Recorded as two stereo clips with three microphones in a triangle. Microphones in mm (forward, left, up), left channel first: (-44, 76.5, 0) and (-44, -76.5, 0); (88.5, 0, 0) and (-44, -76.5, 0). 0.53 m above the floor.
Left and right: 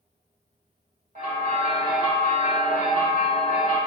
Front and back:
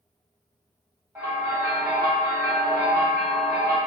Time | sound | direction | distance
1.1 | a bell | 80° right | 1.4 m